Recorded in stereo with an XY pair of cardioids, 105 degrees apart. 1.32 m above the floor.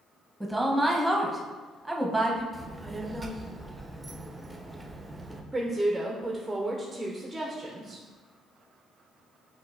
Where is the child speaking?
15° right, 0.6 m.